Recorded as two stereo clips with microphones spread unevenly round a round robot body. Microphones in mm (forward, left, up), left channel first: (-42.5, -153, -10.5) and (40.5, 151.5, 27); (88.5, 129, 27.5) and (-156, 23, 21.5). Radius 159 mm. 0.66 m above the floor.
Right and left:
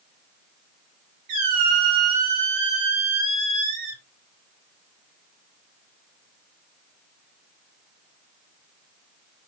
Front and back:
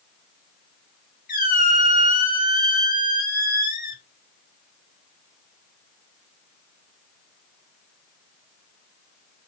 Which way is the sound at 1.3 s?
80° left.